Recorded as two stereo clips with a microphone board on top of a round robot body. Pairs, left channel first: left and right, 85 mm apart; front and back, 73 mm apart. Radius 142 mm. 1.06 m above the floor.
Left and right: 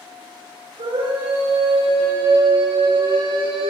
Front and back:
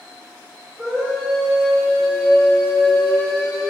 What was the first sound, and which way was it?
A scream, 105° right.